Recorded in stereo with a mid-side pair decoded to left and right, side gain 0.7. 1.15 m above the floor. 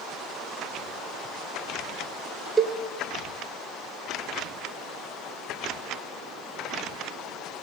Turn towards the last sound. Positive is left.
turn(degrees=-20)